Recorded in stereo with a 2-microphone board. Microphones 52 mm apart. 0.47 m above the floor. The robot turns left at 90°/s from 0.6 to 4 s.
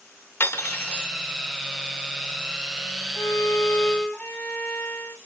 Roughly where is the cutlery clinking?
Ahead left.